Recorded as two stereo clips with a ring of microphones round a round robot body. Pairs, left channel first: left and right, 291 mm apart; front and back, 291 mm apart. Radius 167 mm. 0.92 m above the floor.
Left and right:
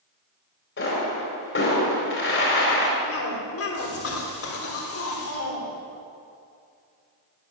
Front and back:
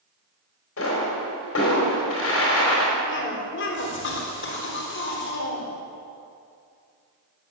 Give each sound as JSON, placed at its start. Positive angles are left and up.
{"t": 0.8, "sound": "a pop", "azimuth_deg": 45, "distance_m": 4.5}
{"t": 3.1, "sound": "a cough", "azimuth_deg": 50, "distance_m": 3.0}